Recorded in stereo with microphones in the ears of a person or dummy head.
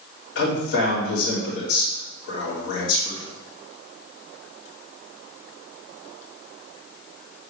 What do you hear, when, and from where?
0.3 s a man speaking: 70° left (ahead or behind), 3 m